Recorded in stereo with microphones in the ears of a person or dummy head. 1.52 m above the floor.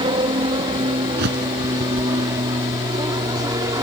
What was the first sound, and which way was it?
An aircraft, 30° right (ahead or behind).